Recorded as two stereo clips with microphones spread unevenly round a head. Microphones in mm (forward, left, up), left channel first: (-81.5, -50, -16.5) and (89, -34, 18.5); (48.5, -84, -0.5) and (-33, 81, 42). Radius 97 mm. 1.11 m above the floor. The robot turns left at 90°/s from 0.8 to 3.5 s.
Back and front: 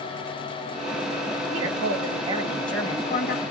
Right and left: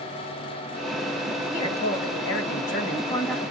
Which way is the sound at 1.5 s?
15° left.